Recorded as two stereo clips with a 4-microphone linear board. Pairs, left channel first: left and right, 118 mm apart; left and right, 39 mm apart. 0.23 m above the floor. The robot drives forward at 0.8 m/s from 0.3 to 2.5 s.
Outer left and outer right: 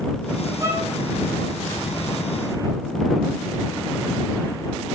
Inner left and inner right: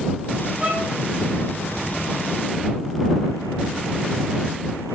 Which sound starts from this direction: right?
A violin, at 0.6 s.